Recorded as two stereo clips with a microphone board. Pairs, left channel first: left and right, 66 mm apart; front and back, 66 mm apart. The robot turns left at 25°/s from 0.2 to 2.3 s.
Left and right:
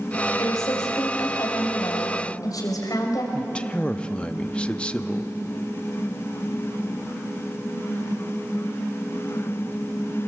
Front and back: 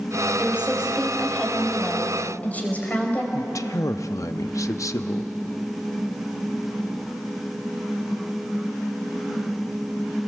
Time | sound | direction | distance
0.4 | a woman speaking | 115° left | 4 m
3.3 | a man speaking | 15° left | 0.8 m